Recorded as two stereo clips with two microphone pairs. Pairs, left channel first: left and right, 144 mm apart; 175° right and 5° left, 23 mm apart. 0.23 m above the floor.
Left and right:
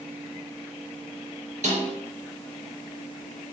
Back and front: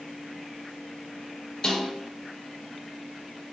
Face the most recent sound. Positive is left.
turn(degrees=-120)